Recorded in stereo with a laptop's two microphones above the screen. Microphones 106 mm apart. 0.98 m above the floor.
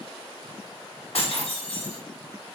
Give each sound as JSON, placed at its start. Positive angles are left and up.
{"t": 1.1, "sound": "breaking glass", "side_deg": 70, "distance_m": 1.7}